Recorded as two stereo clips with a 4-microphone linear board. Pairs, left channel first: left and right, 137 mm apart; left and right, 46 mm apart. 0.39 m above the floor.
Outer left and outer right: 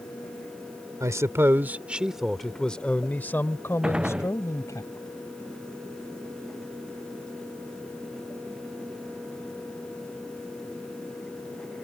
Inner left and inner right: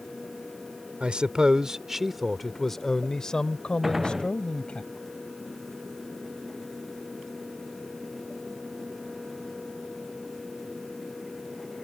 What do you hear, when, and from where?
1.0 s a man speaking: 25° right (ahead or behind); by 4.8 s 25° left (ahead or behind)
3.8 s a gunshot: 5° right (ahead or behind)